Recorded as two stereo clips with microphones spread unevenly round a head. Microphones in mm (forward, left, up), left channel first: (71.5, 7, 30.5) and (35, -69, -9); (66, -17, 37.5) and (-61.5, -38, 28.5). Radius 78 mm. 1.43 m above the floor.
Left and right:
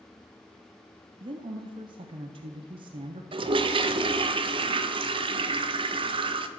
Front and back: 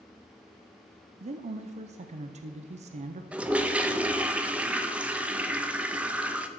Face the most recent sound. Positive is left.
turn(degrees=-90)